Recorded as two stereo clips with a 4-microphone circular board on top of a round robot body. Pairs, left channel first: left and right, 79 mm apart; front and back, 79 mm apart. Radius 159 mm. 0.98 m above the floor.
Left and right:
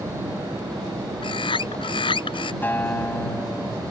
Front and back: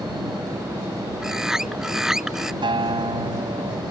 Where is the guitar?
155° left.